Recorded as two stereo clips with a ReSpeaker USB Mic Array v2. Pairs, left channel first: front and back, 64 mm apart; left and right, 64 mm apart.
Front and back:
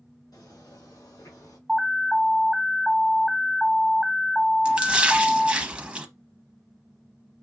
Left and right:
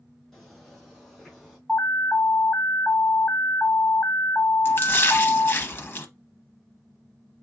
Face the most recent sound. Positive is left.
turn(degrees=120)